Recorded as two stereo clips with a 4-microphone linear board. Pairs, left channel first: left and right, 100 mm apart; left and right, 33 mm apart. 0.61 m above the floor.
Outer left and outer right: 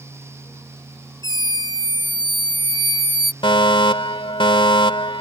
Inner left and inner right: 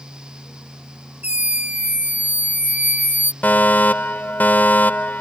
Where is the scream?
50° right (ahead or behind); by 3.3 s 60° right (ahead or behind).